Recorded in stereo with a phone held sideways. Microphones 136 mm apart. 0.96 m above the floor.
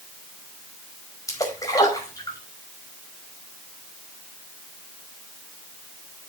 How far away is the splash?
About 5 m.